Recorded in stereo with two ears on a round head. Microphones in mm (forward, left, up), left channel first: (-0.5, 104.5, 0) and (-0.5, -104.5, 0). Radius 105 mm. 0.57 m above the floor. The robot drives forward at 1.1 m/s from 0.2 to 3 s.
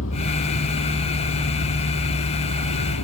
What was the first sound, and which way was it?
A vehicle, 60° left (ahead or behind).